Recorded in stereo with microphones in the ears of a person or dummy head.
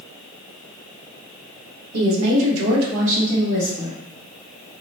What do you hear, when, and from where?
1.9 s a woman speaking: 80° right, 1.3 m; by 4.0 s 10° right (ahead or behind), 1.5 m